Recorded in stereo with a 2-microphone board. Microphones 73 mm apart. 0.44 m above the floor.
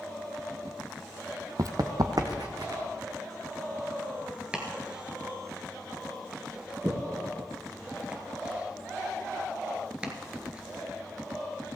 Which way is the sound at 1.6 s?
50° right (ahead or behind).